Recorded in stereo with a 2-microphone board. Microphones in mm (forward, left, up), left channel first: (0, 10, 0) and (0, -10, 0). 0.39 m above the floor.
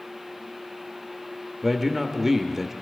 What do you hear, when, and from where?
1.6 s a man speaking: 15° right (ahead or behind), 0.9 m